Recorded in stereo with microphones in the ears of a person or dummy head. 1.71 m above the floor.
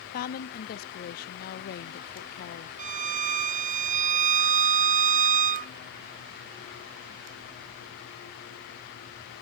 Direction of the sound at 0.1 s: 50° left (ahead or behind).